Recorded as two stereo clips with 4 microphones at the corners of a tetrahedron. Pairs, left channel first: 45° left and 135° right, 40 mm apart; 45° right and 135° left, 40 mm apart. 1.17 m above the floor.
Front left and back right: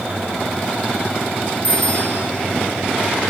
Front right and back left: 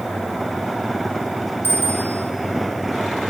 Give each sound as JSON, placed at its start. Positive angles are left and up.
{"t": 1.6, "sound": "a bicycle bell", "azimuth_deg": 100, "distance_m": 5.0}